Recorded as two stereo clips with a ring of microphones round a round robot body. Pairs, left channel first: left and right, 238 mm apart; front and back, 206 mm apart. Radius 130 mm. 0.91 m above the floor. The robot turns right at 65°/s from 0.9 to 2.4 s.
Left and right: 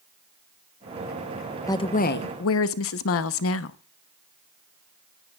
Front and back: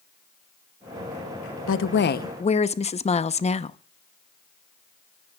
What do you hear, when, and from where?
1.7 s a woman speaking: 10° left, 0.9 m; by 3.8 s 60° left, 0.9 m